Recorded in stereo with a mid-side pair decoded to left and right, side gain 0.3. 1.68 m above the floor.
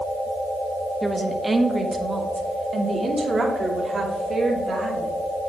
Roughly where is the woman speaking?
Ahead.